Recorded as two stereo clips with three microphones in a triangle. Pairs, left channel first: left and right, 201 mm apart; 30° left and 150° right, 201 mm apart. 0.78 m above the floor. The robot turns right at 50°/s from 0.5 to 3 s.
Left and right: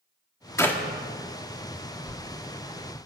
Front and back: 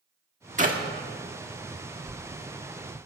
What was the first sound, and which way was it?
A clap, 165° left.